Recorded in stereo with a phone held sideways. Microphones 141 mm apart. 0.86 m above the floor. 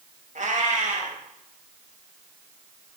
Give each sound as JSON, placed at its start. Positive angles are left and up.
{"t": 0.3, "sound": "a cat meowing", "side_deg": -60, "distance_m": 1.0}